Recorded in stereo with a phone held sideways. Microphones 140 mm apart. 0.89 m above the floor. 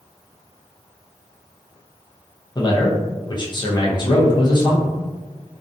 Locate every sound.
2.5 s a man speaking: 35° left (ahead or behind), 0.5 m